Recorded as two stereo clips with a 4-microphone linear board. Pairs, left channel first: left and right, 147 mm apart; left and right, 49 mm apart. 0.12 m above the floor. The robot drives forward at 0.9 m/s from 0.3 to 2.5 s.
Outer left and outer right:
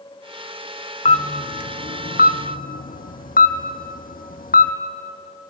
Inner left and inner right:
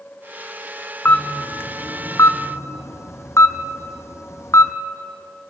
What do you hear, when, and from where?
1.1 s a camera shutter: 45° left (ahead or behind), 1.7 m; by 4.7 s 80° left, 1.3 m